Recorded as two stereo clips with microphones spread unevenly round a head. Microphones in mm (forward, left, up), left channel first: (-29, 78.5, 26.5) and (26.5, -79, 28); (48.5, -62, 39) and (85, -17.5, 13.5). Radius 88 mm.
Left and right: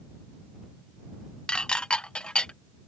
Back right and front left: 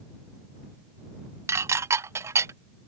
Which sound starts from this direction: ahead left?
Dishes clattering, at 1.5 s.